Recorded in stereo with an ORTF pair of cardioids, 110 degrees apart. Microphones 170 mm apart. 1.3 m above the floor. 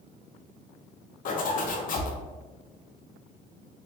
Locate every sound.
1.2 s a zipper: 50° left, 0.8 m